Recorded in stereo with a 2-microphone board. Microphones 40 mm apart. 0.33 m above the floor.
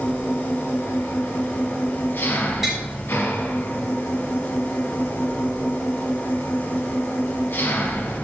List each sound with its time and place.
0.0 s an engine running: 60° left (ahead or behind), 1.9 m
2.6 s tapping: 5° right (ahead or behind), 3.5 m